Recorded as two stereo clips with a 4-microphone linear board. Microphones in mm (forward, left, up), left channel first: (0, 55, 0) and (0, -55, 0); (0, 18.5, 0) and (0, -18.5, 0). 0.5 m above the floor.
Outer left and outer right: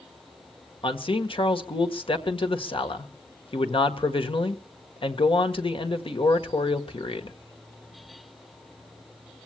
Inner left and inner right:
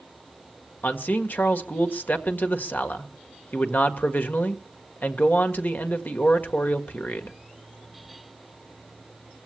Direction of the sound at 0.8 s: 55° left (ahead or behind).